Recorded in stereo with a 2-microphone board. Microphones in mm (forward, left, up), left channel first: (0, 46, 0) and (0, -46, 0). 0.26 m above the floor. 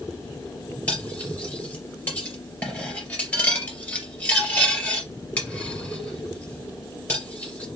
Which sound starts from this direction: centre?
Cutlery clinking, at 0.9 s.